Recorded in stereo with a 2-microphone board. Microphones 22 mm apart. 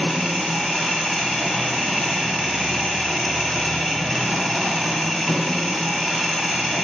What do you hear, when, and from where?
0.0 s an engine running: 10° left (ahead or behind), 1.0 m